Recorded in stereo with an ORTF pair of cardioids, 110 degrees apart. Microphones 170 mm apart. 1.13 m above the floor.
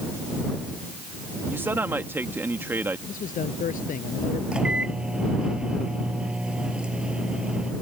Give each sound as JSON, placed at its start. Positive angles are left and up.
{"t": 1.5, "sound": "a man speaking", "azimuth_deg": -15}
{"t": 3.1, "sound": "a man speaking", "azimuth_deg": 50}
{"t": 4.5, "sound": "a microwave", "azimuth_deg": -5}